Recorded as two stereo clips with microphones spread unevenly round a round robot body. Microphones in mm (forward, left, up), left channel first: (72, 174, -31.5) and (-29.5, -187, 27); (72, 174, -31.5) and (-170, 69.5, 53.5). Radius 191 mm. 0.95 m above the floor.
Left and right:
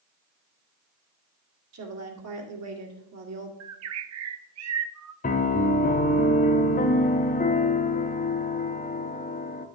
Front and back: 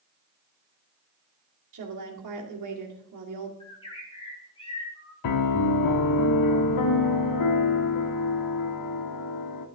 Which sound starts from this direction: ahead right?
A bird, at 3.6 s.